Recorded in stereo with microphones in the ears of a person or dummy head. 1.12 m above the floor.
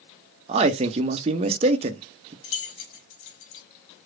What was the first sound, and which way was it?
A man speaking, 30° right (ahead or behind).